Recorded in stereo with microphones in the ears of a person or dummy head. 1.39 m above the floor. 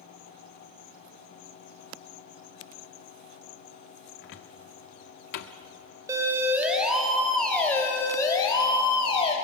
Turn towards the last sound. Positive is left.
turn(degrees=35)  # may be behind; listen again after turning